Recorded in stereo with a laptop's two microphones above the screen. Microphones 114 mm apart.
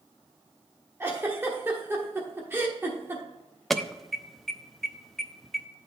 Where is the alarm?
Centre (ahead or behind), 0.6 m.